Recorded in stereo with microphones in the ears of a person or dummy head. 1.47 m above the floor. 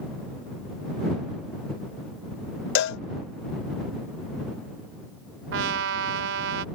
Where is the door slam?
No door slam in this recording.